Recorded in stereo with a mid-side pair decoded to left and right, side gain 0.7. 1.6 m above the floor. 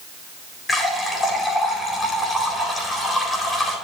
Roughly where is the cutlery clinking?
No cutlery clinking in this recording.